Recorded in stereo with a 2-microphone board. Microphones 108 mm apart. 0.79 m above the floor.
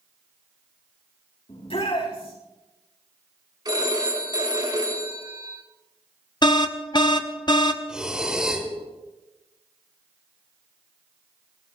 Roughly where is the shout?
Left.